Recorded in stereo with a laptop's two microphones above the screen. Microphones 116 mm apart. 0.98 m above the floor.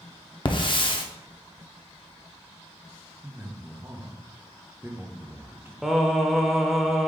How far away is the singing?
About 0.7 m.